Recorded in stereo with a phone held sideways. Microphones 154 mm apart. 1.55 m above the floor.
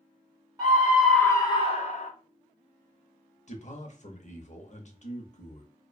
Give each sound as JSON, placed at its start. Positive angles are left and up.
{"t": 0.6, "sound": "a scream", "side_deg": -25, "distance_m": 0.7}
{"t": 3.5, "sound": "a man speaking", "side_deg": 50, "distance_m": 0.7}